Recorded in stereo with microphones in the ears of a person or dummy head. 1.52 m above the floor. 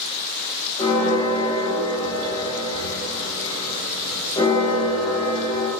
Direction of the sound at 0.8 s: 25° left (ahead or behind).